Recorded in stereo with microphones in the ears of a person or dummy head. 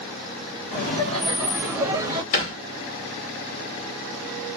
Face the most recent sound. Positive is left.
turn(degrees=45)  # may be behind; listen again after turning